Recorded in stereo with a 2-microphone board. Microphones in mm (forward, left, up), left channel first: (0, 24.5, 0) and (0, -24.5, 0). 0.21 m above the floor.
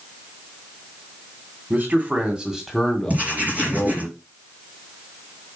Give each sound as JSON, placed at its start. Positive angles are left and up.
{"t": 1.7, "sound": "a man speaking", "side_deg": -40, "distance_m": 2.0}
{"t": 3.1, "sound": "writing", "side_deg": -35, "distance_m": 4.0}